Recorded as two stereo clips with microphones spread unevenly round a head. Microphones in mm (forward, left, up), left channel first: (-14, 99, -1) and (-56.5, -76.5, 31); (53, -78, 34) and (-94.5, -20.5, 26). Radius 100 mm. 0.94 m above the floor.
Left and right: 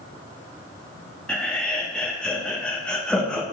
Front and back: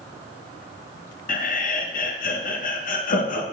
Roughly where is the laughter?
Ahead.